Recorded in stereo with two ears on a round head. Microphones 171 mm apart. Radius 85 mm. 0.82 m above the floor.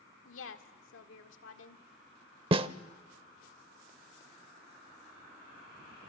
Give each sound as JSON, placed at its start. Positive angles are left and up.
{"t": 0.2, "sound": "a woman speaking", "side_deg": 75, "distance_m": 1.9}
{"t": 2.5, "sound": "a snare drum", "side_deg": -30, "distance_m": 0.8}